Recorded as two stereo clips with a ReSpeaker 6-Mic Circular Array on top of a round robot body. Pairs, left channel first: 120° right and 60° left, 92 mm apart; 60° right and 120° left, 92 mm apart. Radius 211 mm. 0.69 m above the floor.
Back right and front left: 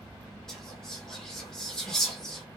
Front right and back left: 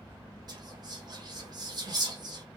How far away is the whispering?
About 1.1 m.